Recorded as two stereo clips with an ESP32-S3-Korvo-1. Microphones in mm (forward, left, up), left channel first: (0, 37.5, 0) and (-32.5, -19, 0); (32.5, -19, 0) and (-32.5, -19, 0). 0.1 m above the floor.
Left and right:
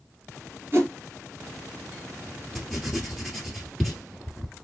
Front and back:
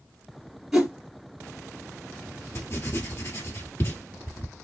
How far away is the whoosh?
About 2.0 m.